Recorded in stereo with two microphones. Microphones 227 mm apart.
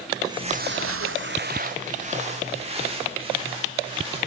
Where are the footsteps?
15° right (ahead or behind), 1.0 m; by 4.2 s 20° right (ahead or behind), 5 m.